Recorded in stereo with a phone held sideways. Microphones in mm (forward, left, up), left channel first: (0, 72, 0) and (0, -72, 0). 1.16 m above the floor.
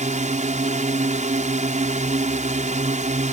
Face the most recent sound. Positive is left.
turn(degrees=-55)  # may be behind; listen again after turning